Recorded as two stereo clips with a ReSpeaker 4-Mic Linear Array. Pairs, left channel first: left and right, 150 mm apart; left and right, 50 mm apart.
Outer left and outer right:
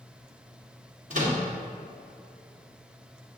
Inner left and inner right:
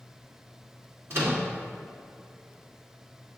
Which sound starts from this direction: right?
A microwave, at 1.1 s.